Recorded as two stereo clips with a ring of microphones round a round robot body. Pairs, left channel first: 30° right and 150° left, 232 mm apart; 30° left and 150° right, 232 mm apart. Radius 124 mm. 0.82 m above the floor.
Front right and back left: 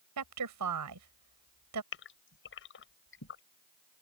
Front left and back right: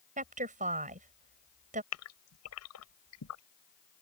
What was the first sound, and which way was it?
A woman speaking, 150° left.